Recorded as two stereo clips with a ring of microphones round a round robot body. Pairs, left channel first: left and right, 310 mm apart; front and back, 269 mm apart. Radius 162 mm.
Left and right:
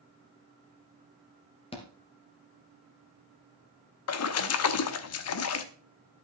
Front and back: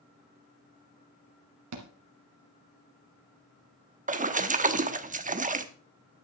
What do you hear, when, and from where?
1.7 s a thud: 165° left, 2.0 m
4.1 s a splash: 120° left, 1.0 m